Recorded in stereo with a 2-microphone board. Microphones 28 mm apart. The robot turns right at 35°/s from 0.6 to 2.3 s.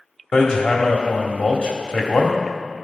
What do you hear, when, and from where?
0.3 s hammering: 30° left, 1.3 m; by 2.3 s 90° left, 1.3 m